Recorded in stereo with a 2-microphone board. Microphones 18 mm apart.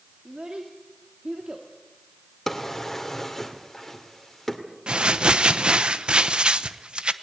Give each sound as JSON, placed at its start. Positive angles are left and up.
{"t": 0.2, "sound": "a child speaking", "side_deg": -65, "distance_m": 1.9}
{"t": 2.5, "sound": "a drawer", "side_deg": 20, "distance_m": 2.0}
{"t": 4.9, "sound": "crumpling", "side_deg": -55, "distance_m": 0.8}